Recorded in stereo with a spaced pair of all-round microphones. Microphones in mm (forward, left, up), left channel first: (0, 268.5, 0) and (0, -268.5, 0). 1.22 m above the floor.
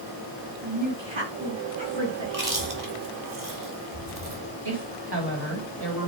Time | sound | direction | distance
0.6 | a woman speaking | 55° right (ahead or behind) | 2.5 m
2.2 | chewing | 35° right (ahead or behind) | 2 m
4.7 | a woman speaking | 45° right (ahead or behind) | 3 m